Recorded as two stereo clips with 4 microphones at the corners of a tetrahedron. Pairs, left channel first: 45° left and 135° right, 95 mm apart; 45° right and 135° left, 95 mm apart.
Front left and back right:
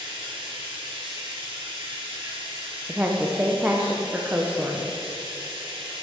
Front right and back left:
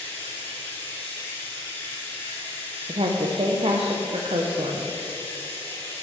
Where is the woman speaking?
150° left, 0.6 m.